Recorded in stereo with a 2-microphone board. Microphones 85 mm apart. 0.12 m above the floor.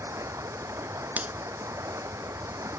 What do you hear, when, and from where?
0.0 s running water: 35° right (ahead or behind)
1.2 s a finger snap: 20° right (ahead or behind)